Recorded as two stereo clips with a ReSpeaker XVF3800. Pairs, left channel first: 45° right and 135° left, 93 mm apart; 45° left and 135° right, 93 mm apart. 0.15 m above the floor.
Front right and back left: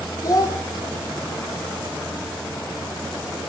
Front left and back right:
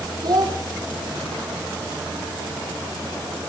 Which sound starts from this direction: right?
A child speaking, at 0.2 s.